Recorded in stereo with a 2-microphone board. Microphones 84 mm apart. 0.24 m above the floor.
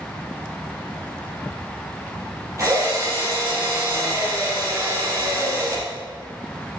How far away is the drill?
About 5.5 m.